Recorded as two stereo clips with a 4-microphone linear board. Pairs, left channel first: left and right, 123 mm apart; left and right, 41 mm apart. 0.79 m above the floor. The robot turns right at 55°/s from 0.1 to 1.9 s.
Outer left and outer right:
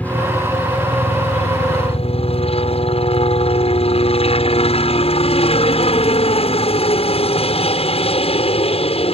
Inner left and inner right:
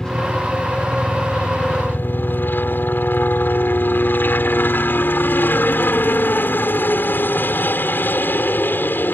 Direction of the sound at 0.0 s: 15° left.